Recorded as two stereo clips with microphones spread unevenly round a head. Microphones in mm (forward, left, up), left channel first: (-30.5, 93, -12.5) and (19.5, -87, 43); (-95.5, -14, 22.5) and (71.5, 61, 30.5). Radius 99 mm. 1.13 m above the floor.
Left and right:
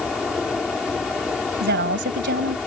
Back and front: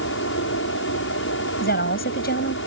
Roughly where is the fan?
Behind.